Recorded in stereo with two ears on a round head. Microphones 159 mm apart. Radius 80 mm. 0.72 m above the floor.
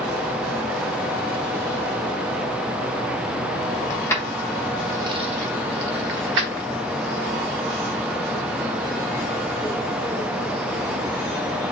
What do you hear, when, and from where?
3.9 s keys jangling: 20° left (ahead or behind), 0.9 m; by 6.7 s 75° right (ahead or behind), 1.1 m